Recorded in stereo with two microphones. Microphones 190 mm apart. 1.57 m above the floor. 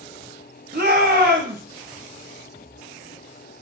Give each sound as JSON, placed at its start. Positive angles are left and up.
{"t": 0.7, "sound": "a shout", "side_deg": -55, "distance_m": 2.0}